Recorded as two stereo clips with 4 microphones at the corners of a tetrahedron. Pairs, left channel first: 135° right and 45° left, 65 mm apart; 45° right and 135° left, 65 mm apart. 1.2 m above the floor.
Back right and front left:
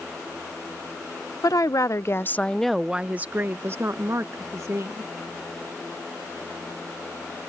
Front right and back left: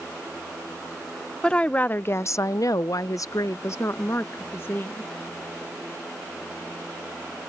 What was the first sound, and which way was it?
A woman speaking, 120° right.